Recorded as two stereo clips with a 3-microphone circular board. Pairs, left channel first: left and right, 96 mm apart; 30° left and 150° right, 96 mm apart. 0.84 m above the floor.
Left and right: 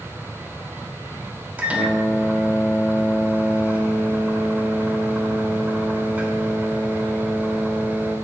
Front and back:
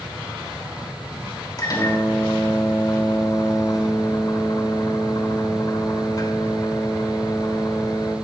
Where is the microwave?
20° right, 3 m.